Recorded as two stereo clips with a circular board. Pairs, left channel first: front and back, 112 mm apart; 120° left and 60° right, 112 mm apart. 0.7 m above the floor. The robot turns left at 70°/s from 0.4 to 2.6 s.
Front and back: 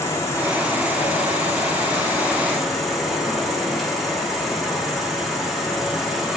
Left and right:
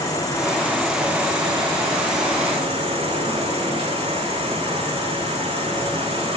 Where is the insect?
65° left, 4 m; by 6.4 s 90° right, 4 m.